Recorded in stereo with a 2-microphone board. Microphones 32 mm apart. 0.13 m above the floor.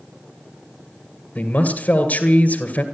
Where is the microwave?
I don't hear a microwave.